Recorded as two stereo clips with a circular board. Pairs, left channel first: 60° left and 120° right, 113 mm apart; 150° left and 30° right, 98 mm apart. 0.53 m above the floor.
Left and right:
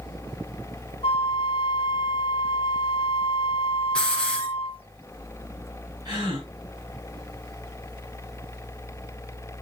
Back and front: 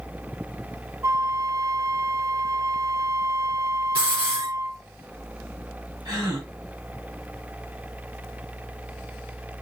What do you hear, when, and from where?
1.0 s a flute: 25° left, 0.7 m
4.0 s a hiss: 25° right, 3.5 m
6.0 s a gasp: 70° right, 6 m